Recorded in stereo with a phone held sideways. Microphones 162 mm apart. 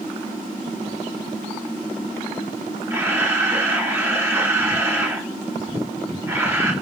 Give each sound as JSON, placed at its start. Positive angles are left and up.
{"t": 2.9, "sound": "a camera shutter", "side_deg": -15, "distance_m": 5.0}